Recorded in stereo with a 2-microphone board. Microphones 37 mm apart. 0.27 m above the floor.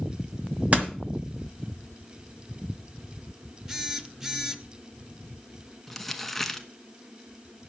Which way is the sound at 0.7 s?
40° right (ahead or behind).